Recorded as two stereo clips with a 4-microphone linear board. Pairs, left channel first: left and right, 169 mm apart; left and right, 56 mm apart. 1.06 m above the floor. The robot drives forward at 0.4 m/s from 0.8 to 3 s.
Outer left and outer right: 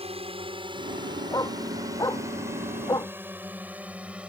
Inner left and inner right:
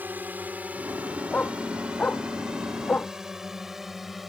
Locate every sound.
0.0 s a drone: 35° right (ahead or behind); by 4.3 s 5° right (ahead or behind)
1.3 s a dog barking: 20° left (ahead or behind)